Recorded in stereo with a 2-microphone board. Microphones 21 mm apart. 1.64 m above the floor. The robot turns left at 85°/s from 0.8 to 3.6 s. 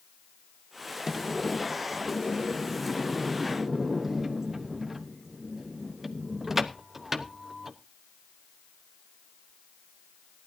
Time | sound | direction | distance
1.1 | a sliding door | 160° right | 0.9 m